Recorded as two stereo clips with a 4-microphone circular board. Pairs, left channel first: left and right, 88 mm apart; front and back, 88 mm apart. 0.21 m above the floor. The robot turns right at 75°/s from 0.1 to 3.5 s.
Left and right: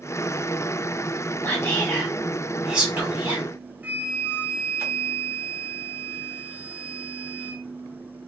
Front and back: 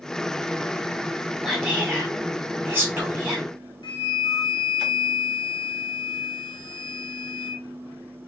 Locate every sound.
1.4 s whispering: 105° left, 1.5 m; by 4.8 s 100° right, 1.5 m
3.8 s a flute: 20° right, 0.6 m